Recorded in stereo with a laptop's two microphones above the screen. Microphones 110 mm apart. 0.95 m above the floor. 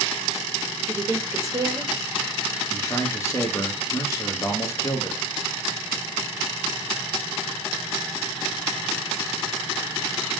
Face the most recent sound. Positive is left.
turn(degrees=30)  # may be behind; listen again after turning